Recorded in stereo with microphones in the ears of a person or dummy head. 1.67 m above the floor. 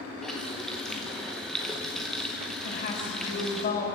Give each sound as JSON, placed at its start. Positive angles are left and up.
{"t": 0.2, "sound": "a running tap", "side_deg": 0, "distance_m": 0.9}
{"t": 2.6, "sound": "a woman speaking", "side_deg": 45, "distance_m": 7.0}